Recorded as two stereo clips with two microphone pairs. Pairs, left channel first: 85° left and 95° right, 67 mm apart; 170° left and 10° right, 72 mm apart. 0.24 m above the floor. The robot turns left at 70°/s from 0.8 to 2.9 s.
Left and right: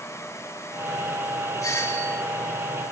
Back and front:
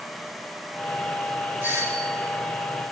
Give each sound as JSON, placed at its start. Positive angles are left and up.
{"t": 1.6, "sound": "a doorbell", "azimuth_deg": 50, "distance_m": 5.5}